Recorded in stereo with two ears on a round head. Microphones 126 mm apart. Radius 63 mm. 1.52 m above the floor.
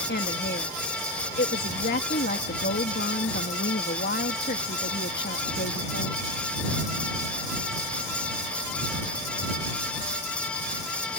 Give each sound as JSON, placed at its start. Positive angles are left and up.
{"t": 0.1, "sound": "a woman speaking", "side_deg": 85}